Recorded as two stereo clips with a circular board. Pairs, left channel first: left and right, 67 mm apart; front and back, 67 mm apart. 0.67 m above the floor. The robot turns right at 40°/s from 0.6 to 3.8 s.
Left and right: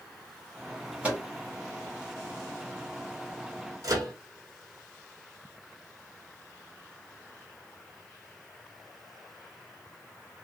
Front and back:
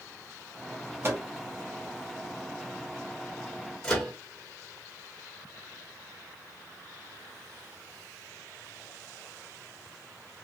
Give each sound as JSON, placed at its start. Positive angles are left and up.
{"t": 1.0, "sound": "a microwave", "azimuth_deg": -155, "distance_m": 1.0}
{"t": 3.8, "sound": "a microwave", "azimuth_deg": -75, "distance_m": 1.4}